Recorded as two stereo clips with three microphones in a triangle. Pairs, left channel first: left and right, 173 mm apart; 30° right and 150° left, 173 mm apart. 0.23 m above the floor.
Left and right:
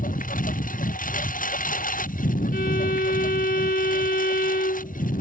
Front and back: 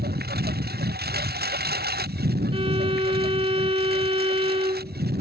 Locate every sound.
0.0 s a lawn mower: 130° left
2.5 s a violin: 100° left